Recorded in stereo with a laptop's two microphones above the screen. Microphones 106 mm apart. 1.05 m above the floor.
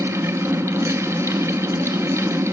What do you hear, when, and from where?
0.0 s a fan: 25° right (ahead or behind), 0.8 m